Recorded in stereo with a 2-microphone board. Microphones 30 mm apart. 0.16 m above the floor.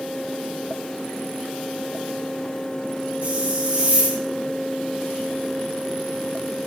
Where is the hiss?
40° right (ahead or behind), 3 m.